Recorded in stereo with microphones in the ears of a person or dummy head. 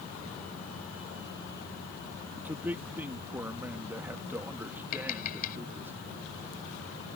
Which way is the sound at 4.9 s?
55° left (ahead or behind).